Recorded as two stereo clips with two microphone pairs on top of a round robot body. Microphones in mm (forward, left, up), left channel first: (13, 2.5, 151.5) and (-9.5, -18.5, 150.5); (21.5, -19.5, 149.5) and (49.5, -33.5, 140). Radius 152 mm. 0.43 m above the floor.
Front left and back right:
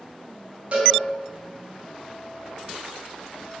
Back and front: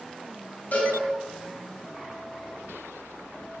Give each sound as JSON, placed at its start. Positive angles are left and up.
{"t": 0.7, "sound": "a cowbell", "azimuth_deg": 180, "distance_m": 4.0}